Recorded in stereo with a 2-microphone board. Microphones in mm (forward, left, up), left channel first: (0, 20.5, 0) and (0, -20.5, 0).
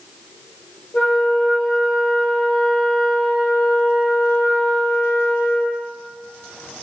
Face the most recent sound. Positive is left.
turn(degrees=35)  # may be behind; listen again after turning